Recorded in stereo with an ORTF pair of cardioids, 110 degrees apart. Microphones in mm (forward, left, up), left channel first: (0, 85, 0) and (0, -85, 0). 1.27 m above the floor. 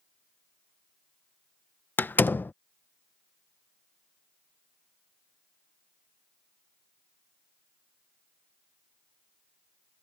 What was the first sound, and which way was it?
A door slam, 10° left.